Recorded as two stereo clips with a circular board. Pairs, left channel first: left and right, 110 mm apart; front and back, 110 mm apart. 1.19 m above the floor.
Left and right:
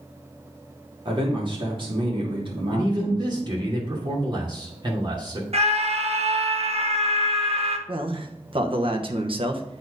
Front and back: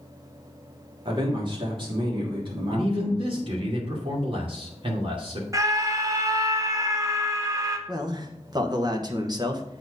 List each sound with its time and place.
1.1 s a man speaking: 135° right, 3 m
2.7 s a man speaking: 140° right, 2.5 m
5.5 s a scream: 120° right, 1.3 m
7.9 s a man speaking: 125° right, 1.2 m